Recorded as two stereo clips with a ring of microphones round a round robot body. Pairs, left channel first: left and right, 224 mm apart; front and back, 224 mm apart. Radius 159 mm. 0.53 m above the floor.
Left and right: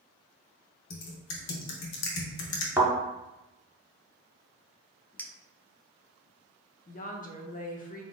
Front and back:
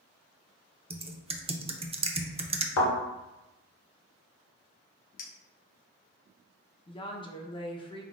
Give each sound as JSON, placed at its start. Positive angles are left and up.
{"t": 0.9, "sound": "typing on a keyboard", "azimuth_deg": 115, "distance_m": 0.6}
{"t": 2.8, "sound": "a thud", "azimuth_deg": -10, "distance_m": 1.7}
{"t": 5.2, "sound": "a clink", "azimuth_deg": 10, "distance_m": 0.7}
{"t": 6.9, "sound": "a woman speaking", "azimuth_deg": 60, "distance_m": 0.8}